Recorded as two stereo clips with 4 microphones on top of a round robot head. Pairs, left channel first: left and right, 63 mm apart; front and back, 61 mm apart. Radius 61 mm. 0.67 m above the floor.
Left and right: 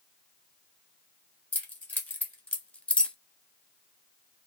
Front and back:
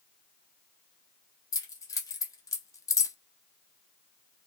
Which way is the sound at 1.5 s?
25° left.